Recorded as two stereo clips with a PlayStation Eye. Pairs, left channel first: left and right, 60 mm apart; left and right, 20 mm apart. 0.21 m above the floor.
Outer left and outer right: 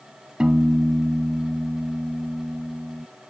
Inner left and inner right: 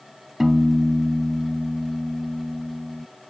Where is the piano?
15° right (ahead or behind).